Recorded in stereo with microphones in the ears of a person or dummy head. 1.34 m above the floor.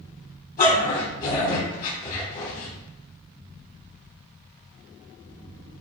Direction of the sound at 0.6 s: 40° left (ahead or behind).